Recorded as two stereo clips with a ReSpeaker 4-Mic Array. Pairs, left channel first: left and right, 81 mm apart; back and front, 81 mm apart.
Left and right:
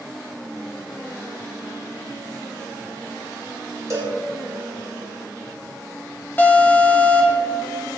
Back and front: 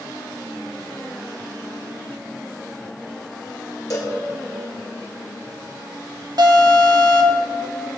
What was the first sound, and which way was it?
A cowbell, 140° right.